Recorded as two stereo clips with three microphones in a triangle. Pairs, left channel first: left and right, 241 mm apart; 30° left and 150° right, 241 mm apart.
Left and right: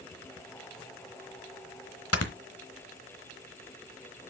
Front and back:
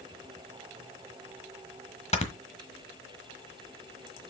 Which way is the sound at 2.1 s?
90° left.